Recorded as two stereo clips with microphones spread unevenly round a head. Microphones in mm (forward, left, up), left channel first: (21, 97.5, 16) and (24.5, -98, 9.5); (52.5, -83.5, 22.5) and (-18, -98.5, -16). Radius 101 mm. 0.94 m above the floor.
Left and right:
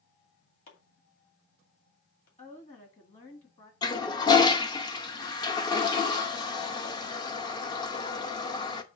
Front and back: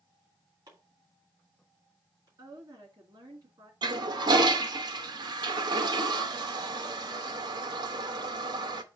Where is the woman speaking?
150° left, 1.9 m.